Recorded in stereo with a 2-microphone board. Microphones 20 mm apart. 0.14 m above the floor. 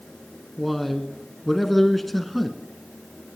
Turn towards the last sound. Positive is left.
turn(degrees=5)  # may be behind; listen again after turning